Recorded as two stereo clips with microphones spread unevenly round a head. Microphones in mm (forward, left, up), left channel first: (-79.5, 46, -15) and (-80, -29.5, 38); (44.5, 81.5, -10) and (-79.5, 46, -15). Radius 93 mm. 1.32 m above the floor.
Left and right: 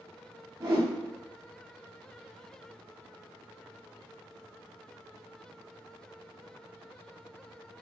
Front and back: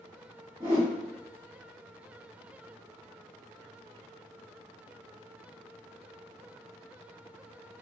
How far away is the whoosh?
About 1.1 m.